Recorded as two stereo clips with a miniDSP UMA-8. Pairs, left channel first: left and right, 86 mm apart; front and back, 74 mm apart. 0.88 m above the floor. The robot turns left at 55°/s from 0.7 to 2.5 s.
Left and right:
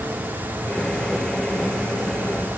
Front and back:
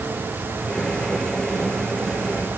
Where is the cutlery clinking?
I don't hear cutlery clinking.